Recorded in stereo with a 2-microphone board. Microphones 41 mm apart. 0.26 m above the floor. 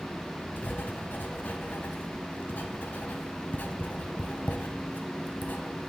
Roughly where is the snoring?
No snoring in this recording.